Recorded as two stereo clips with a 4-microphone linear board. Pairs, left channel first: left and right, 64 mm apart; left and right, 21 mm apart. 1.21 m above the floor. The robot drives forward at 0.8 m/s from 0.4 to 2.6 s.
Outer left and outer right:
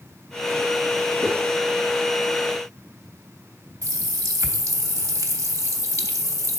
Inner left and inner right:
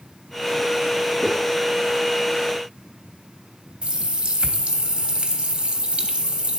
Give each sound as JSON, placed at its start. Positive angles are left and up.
{"t": 1.2, "sound": "footsteps", "side_deg": 75, "distance_m": 4.5}
{"t": 3.8, "sound": "a running tap", "side_deg": -60, "distance_m": 0.9}